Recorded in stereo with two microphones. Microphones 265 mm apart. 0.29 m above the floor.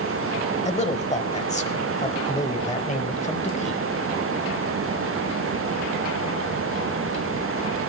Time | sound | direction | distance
0.7 | a man speaking | 25° left (ahead or behind) | 0.9 m